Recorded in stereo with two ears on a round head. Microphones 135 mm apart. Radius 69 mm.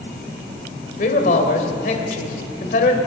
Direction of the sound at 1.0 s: 55° left (ahead or behind).